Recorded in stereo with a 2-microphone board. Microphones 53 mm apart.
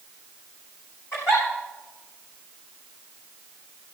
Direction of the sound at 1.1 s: 65° left (ahead or behind).